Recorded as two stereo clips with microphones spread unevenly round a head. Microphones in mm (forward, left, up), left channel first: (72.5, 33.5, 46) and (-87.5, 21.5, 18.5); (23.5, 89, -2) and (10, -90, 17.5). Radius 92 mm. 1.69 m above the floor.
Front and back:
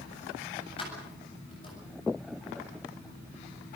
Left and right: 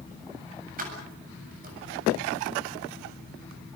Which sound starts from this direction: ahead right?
Keys jangling, at 0.8 s.